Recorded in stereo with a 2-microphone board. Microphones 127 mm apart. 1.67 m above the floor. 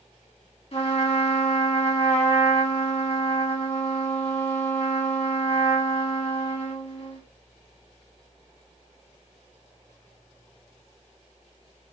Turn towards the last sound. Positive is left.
turn(degrees=50)  # may be behind; listen again after turning